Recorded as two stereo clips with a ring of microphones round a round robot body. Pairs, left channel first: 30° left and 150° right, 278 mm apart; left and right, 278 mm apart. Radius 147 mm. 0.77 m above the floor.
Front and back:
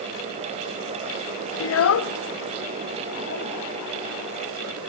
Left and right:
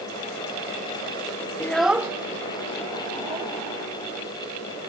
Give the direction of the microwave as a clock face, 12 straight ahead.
I don't hear a microwave.